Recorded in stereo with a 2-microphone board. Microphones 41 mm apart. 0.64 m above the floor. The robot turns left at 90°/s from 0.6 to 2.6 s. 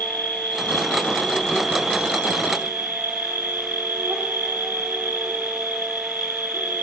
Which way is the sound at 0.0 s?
95° left.